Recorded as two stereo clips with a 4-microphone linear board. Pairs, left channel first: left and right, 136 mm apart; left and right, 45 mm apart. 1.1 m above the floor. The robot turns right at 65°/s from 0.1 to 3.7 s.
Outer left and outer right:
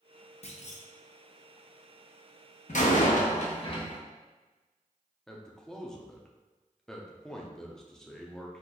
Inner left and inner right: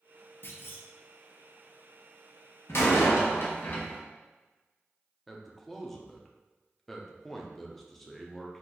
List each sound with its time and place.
0.4 s a clunk: 50° left (ahead or behind), 0.6 m; by 0.9 s 60° left (ahead or behind), 0.6 m
2.7 s a door slam: 70° left, 0.7 m; by 4.0 s 135° left, 0.7 m
5.3 s a man speaking: 5° left (ahead or behind), 0.6 m